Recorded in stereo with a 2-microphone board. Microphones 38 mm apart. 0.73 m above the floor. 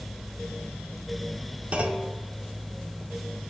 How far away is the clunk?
About 1.0 m.